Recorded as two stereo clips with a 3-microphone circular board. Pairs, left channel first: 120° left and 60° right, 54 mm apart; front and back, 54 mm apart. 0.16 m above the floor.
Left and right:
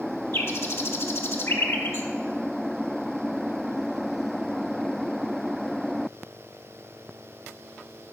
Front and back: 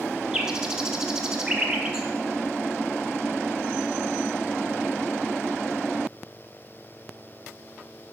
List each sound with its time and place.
0.3 s a bird: 105° left, 0.8 m